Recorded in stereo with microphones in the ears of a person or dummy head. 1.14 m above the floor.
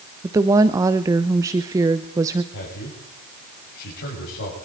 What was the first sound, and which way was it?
A woman speaking, 15° right (ahead or behind).